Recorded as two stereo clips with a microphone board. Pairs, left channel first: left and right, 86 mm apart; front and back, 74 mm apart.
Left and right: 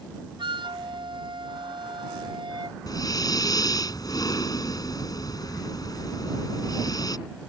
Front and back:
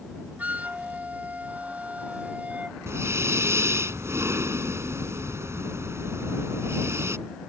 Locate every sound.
0.4 s a flute: 110° right
2.9 s breathing: 130° left